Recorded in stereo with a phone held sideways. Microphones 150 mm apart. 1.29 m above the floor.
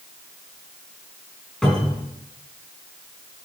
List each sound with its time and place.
1.6 s a cupboard door: 5° left (ahead or behind), 4.5 m